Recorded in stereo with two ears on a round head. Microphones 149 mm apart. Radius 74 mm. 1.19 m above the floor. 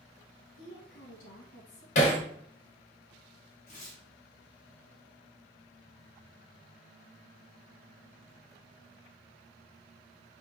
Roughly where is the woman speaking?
Left.